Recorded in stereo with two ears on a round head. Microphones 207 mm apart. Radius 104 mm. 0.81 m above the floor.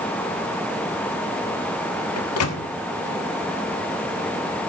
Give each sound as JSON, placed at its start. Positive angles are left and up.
{"t": 2.2, "sound": "a microwave", "side_deg": 65, "distance_m": 1.2}